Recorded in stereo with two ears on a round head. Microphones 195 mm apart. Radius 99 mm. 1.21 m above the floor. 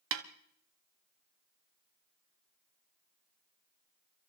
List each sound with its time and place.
0.1 s a snare drum: 60° right (ahead or behind), 1.2 m